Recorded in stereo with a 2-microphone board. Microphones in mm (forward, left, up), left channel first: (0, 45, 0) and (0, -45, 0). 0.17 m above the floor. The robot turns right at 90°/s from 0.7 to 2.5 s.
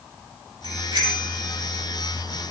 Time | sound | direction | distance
0.6 | a bicycle bell | 75° right (ahead or behind) | 4.5 m